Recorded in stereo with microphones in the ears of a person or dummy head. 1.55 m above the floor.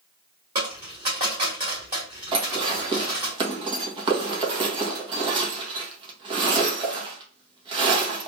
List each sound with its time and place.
0.6 s a dropped coin: 15° right (ahead or behind), 1.3 m
2.3 s dishes clattering: 35° right (ahead or behind), 1.1 m